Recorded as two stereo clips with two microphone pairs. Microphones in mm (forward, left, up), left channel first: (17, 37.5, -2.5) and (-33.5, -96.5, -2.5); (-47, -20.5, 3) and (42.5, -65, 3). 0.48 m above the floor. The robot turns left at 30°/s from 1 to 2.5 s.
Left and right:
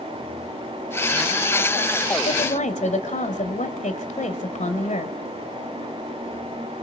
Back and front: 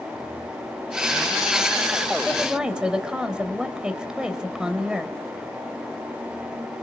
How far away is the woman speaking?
About 2.5 m.